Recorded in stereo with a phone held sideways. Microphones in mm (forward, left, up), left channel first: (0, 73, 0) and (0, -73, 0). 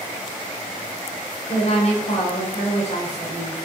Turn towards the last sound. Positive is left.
turn(degrees=50)  # may be behind; listen again after turning